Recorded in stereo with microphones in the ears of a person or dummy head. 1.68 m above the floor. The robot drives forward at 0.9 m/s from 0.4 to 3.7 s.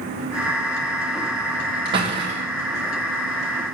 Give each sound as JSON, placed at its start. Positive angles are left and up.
{"t": 1.9, "sound": "a door slam", "side_deg": -35, "distance_m": 2.0}